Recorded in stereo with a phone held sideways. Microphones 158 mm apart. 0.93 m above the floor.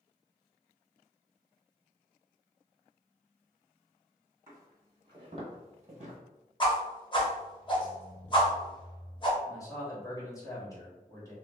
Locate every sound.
4.5 s footsteps: 15° right (ahead or behind), 1.3 m; by 6.2 s 45° right (ahead or behind), 1.3 m
6.6 s a whoosh: 30° left (ahead or behind), 0.7 m
9.5 s a man speaking: 20° left (ahead or behind), 1.2 m